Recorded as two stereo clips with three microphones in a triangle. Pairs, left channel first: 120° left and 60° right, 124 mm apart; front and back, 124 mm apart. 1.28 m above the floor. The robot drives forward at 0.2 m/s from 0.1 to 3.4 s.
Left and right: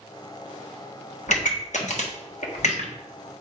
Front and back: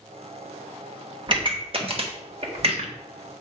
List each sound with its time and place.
1.3 s a pop: 130° left, 1.2 m; by 3.3 s 145° left, 1.5 m